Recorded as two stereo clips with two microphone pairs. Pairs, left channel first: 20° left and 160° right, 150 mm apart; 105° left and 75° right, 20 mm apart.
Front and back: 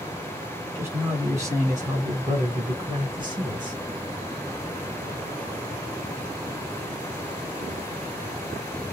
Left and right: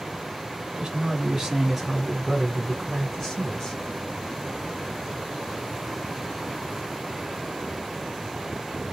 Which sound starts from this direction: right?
A man speaking, at 0.8 s.